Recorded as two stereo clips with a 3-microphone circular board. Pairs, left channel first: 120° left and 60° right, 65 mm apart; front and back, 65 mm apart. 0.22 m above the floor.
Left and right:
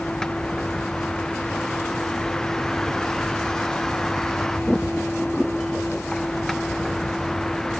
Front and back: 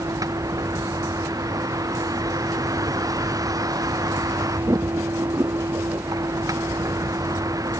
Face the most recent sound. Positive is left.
turn(degrees=-155)